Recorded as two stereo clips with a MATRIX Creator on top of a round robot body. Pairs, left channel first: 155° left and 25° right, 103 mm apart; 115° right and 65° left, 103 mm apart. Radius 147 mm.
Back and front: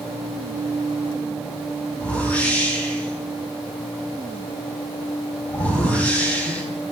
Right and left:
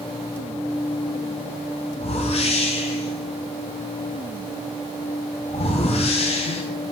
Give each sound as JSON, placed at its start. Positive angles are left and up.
{"t": 2.0, "sound": "a whoosh", "azimuth_deg": -125, "distance_m": 5.0}